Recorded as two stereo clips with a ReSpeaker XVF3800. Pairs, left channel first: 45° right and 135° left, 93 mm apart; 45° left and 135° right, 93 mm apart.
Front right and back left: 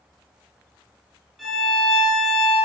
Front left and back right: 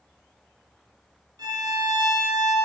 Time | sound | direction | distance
1.4 | a violin | 135° right | 1.0 m